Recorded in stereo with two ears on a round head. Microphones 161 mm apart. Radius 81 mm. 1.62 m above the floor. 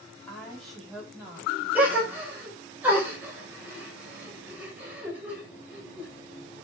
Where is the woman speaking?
10° left (ahead or behind), 5 m; by 2.5 s 30° right (ahead or behind), 6 m.